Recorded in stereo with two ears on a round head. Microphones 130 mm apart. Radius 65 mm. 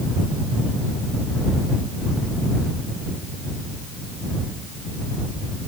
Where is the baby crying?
I don't hear a baby crying.